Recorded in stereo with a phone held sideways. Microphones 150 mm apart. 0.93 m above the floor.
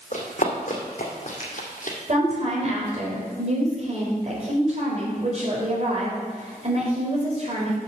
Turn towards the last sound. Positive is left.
turn(degrees=-50)  # may be behind; listen again after turning